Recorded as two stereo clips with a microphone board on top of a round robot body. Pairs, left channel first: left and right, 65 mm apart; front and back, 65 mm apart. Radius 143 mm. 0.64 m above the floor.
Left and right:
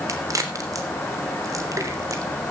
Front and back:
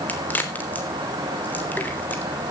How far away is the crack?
About 3 m.